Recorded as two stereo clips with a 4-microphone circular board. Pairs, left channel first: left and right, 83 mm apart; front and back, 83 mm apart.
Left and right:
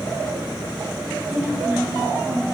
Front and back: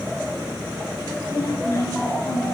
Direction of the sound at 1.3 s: 10° right.